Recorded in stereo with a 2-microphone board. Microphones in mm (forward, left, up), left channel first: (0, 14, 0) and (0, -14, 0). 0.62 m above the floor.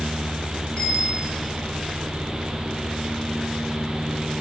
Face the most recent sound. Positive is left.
turn(degrees=35)  # may be behind; listen again after turning